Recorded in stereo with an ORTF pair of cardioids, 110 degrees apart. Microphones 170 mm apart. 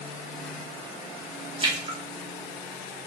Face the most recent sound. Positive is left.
turn(degrees=-25)